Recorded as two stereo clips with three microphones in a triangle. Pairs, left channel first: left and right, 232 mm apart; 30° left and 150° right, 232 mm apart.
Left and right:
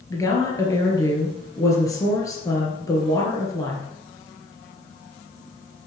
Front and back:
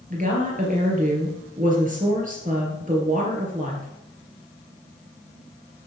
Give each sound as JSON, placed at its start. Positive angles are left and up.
{"t": 0.1, "sound": "a woman speaking", "azimuth_deg": 165, "distance_m": 2.5}